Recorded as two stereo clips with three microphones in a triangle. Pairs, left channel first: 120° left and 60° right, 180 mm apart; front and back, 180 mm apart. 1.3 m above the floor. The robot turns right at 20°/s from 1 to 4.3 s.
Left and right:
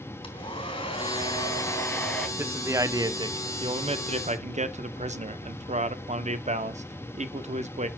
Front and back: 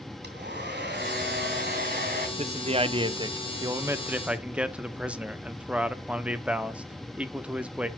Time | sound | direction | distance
0.2 | a hair dryer | straight behind | 3 m
2.4 | a man speaking | 135° right | 0.8 m